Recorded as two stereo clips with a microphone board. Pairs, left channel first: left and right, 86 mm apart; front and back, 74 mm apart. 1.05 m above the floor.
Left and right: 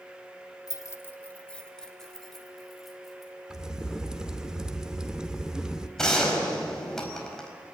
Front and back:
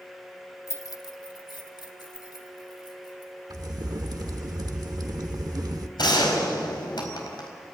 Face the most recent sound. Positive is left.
turn(degrees=5)